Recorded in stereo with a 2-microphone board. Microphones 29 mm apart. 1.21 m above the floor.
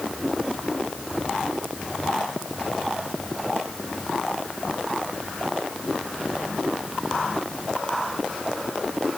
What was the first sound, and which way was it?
Only background noise.